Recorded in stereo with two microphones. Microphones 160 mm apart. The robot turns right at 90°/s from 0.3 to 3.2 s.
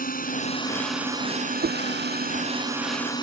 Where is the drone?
125° left; by 3.2 s 25° left.